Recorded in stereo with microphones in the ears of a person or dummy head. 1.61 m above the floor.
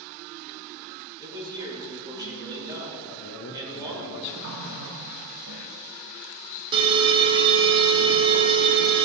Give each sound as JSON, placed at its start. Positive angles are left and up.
{"t": 1.2, "sound": "a man speaking", "side_deg": -20, "distance_m": 3.0}
{"t": 3.1, "sound": "a man speaking", "side_deg": 70, "distance_m": 1.3}
{"t": 4.4, "sound": "a running tap", "side_deg": -70, "distance_m": 1.6}
{"t": 6.7, "sound": "an alarm", "side_deg": -25, "distance_m": 0.8}